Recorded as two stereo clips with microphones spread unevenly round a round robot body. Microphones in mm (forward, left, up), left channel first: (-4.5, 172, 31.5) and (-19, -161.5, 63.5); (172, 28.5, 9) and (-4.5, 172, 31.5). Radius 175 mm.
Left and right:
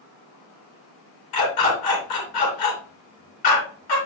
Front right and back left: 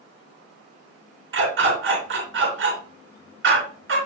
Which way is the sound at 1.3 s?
110° left.